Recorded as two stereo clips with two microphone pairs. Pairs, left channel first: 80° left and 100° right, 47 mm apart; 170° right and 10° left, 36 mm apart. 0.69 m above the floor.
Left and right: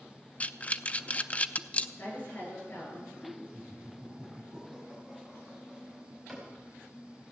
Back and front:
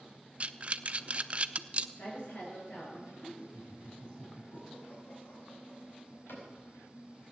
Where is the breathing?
40° left, 0.5 m.